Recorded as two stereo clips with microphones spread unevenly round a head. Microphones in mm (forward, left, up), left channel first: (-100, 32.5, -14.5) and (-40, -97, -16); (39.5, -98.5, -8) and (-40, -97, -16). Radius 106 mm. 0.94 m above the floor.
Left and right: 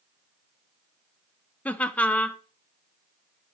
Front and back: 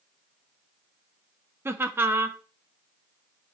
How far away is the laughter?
About 0.7 m.